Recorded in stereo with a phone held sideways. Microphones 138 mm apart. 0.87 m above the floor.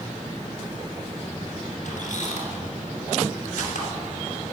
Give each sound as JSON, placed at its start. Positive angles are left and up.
{"t": 1.9, "sound": "a squeak", "side_deg": 65, "distance_m": 2.5}